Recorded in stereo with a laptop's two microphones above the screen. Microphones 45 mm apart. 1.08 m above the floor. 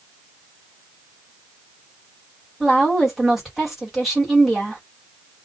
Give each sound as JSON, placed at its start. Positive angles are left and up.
{"t": 2.6, "sound": "a woman speaking", "side_deg": -5, "distance_m": 1.3}